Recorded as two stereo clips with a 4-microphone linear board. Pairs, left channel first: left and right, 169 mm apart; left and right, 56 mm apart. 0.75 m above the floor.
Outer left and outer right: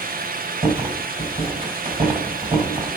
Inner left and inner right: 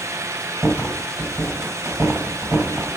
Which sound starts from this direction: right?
A rattle, at 0.6 s.